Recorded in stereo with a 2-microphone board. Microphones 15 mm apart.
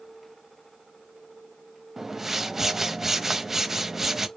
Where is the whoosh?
15° right (ahead or behind), 0.7 m.